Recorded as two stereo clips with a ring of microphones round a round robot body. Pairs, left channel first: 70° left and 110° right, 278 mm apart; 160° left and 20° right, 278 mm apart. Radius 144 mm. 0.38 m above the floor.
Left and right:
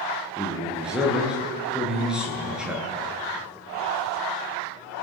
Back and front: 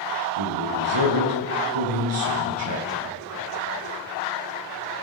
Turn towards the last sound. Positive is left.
turn(degrees=-25)